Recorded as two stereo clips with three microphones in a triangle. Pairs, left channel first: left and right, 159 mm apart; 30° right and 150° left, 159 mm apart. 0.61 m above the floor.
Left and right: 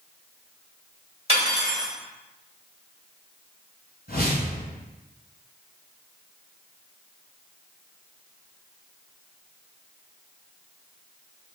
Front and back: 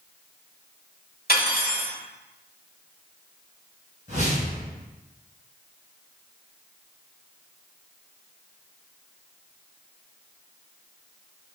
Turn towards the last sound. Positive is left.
turn(degrees=110)